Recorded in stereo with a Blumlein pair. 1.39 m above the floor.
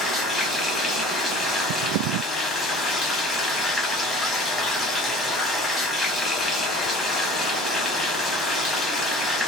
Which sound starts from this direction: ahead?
Running water, at 0.0 s.